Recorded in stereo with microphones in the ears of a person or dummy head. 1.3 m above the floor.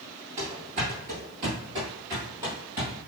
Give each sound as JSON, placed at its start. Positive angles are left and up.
{"t": 0.4, "sound": "running footsteps", "side_deg": -35, "distance_m": 1.5}